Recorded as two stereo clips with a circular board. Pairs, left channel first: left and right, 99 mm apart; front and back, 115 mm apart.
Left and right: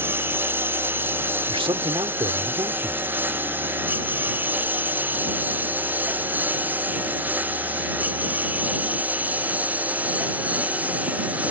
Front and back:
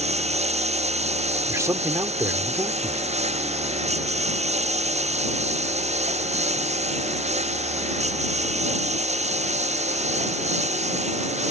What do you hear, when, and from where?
0.0 s a lawn mower: 160° right; by 11.5 s 165° right
1.5 s a man speaking: 115° right